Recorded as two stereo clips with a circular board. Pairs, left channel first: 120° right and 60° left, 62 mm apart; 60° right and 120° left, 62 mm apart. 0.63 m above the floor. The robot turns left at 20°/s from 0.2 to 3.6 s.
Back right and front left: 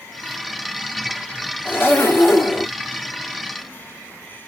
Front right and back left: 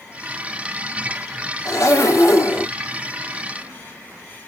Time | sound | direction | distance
1.6 | a zipper | 70° right | 1.5 m